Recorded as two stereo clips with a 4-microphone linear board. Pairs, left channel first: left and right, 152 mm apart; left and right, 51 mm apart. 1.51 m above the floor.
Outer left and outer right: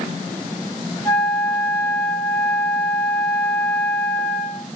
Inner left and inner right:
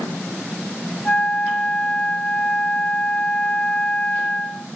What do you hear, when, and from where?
1.1 s a flute: 10° left (ahead or behind), 0.7 m